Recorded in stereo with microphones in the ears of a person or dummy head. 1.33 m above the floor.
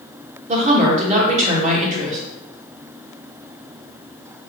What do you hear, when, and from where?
0.5 s a woman speaking: 40° right (ahead or behind), 1.4 m